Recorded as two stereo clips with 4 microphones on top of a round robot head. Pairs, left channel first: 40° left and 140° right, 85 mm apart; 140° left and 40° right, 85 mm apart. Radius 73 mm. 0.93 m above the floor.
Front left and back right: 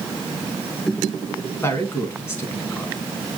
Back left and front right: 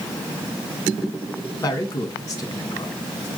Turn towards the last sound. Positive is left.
turn(degrees=95)